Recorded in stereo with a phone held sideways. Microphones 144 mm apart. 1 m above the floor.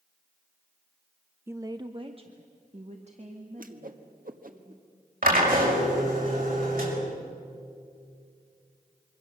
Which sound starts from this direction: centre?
A woman speaking, at 1.5 s.